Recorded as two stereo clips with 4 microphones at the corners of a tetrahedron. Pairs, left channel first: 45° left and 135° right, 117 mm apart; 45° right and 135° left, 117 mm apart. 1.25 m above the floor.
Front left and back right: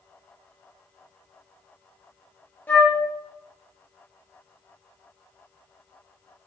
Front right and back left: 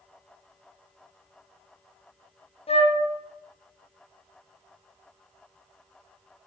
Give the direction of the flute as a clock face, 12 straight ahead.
1 o'clock.